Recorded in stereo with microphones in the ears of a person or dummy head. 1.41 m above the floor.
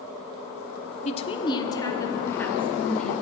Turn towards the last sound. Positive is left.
turn(degrees=5)  # may be behind; listen again after turning